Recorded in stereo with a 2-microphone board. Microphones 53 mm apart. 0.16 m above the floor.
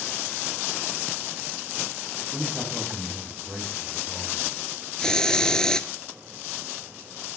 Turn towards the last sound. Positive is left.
turn(degrees=15)  # may be behind; listen again after turning